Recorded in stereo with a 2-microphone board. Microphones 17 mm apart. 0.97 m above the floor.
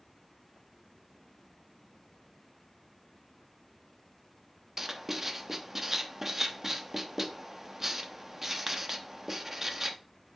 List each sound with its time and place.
4.8 s writing: 25° right (ahead or behind), 0.9 m